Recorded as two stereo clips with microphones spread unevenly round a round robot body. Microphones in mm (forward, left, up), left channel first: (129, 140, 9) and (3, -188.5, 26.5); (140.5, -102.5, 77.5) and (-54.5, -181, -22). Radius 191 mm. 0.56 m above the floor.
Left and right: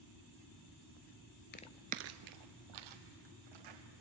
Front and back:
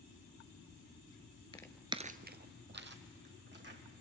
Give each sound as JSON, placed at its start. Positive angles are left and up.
{"t": 1.5, "sound": "footsteps", "azimuth_deg": 15, "distance_m": 0.6}